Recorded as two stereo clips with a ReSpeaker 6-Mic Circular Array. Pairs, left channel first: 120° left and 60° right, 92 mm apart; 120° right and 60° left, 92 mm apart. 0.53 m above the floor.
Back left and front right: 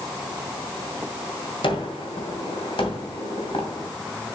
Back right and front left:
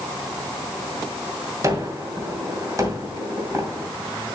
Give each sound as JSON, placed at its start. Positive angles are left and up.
{"t": 1.6, "sound": "a gunshot", "azimuth_deg": 110, "distance_m": 2.5}